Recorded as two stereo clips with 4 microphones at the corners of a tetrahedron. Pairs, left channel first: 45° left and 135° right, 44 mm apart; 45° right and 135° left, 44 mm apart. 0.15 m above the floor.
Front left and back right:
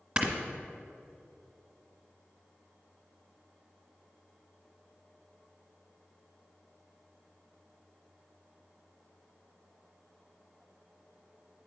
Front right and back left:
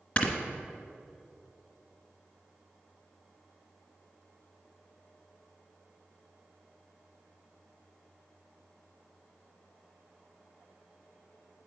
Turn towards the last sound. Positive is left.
turn(degrees=-80)